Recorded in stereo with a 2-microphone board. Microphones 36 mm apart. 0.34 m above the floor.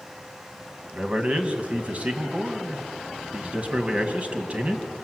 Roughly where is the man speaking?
Right.